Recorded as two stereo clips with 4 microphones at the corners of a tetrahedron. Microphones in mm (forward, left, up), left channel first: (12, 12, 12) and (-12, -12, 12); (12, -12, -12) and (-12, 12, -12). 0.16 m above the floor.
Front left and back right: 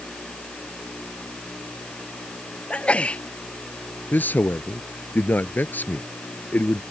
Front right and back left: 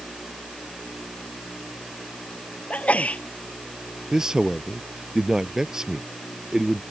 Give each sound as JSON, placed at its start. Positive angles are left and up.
{"t": 2.7, "sound": "a sneeze", "azimuth_deg": -5}
{"t": 4.1, "sound": "a man speaking", "azimuth_deg": 65}